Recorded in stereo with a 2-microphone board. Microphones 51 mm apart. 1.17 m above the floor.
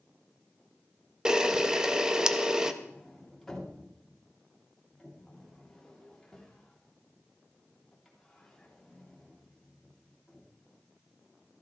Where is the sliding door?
5° left (ahead or behind), 3 m.